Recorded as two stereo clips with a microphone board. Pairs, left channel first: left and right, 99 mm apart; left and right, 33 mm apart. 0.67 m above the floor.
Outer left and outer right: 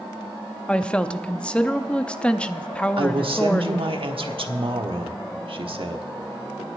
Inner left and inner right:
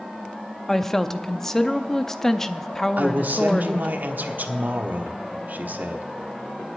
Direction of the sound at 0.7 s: 10° left (ahead or behind).